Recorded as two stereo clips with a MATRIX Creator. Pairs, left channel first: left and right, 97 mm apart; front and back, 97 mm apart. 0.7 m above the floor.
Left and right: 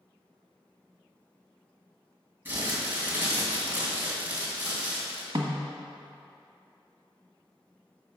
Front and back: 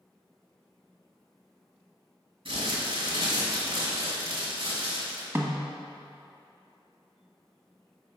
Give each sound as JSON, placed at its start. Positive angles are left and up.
{"t": 2.5, "sound": "crumpling", "azimuth_deg": -155, "distance_m": 2.5}
{"t": 5.3, "sound": "a snare drum", "azimuth_deg": -120, "distance_m": 1.3}